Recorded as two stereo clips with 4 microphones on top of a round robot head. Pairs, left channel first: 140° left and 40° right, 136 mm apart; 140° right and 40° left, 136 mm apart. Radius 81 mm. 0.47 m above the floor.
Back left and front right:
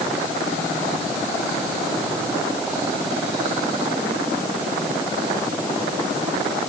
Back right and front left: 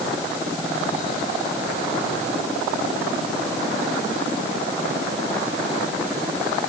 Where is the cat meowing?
I don't hear a cat meowing.